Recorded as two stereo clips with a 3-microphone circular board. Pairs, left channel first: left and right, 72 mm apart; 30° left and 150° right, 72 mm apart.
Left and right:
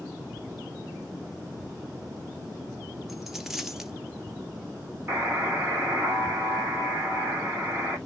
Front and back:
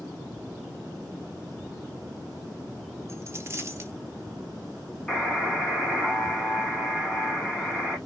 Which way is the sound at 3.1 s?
175° right.